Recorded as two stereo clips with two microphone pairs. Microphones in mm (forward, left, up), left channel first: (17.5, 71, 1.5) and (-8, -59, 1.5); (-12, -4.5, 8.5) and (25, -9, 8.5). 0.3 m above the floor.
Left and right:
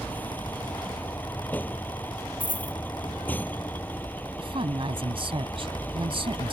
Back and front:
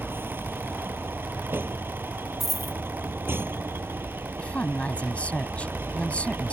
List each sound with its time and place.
0.0 s a vehicle: straight ahead
2.4 s a dropped coin: 85° left
4.4 s a woman speaking: 140° right